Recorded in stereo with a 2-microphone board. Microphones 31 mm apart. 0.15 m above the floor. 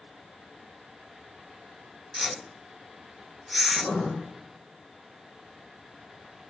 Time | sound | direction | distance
2.1 | a whoosh | centre (ahead or behind) | 0.7 m
3.7 | writing | 75° left (ahead or behind) | 7.5 m